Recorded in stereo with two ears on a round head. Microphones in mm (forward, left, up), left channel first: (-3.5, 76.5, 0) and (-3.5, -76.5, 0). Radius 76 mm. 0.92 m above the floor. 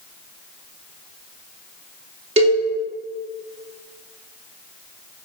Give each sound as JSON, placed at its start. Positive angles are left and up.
{"t": 2.4, "sound": "a cowbell", "side_deg": -40, "distance_m": 2.5}